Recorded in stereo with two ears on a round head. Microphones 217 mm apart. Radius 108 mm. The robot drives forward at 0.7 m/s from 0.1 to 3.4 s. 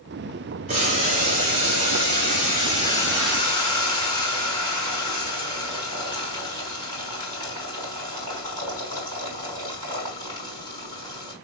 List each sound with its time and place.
0.7 s boiling: 35° right (ahead or behind), 2.5 m; by 11.3 s 20° right (ahead or behind), 4 m